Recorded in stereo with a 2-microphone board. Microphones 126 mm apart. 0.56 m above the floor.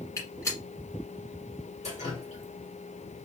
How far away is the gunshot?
About 1.6 m.